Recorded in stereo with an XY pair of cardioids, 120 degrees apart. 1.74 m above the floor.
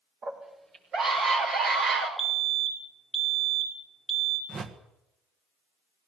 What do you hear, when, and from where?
0.2 s a scream: 50° right, 6.5 m; by 2.1 s 65° right, 7 m
2.2 s a fire alarm: 10° right, 2 m
4.5 s a whoosh: 40° right, 1.6 m